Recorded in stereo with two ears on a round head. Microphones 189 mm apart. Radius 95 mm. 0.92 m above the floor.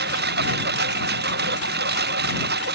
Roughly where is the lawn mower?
Right.